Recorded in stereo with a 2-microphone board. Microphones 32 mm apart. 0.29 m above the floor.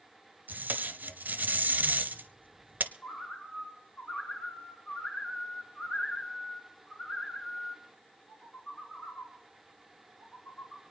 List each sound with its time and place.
0.5 s tape being pulled: 70° right (ahead or behind), 0.8 m
3.0 s a bird: 45° left (ahead or behind), 3.5 m